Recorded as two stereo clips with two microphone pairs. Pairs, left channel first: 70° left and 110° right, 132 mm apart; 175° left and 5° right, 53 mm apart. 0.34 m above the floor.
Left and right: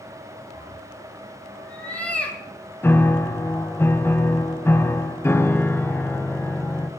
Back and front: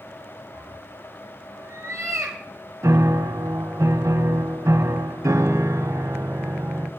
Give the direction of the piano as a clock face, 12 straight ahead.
12 o'clock.